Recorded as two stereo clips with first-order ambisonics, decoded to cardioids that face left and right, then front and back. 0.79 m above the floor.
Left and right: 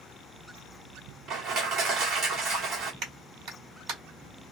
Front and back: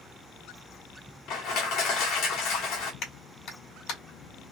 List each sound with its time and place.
1.3 s crushing: 35° right, 1.6 m
3.0 s a clap: 45° right, 1.9 m